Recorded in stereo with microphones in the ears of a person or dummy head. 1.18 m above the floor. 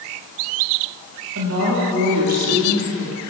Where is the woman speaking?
70° right (ahead or behind), 2.5 m; by 3.2 s 80° right, 3.5 m.